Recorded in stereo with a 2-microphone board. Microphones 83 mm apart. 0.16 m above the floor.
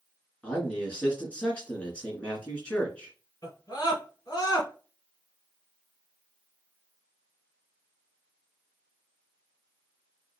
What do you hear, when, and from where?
0.4 s a man speaking: 15° left (ahead or behind), 2.5 m
3.4 s a scream: 45° left (ahead or behind), 2.5 m